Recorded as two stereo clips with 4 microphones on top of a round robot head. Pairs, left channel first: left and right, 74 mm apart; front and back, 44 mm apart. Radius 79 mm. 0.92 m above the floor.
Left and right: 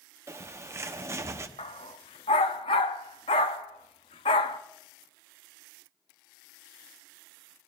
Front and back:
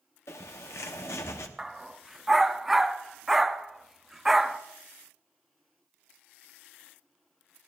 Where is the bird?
35° right, 0.8 m.